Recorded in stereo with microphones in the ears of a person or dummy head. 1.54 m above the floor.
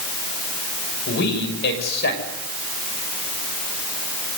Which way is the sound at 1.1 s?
75° left (ahead or behind).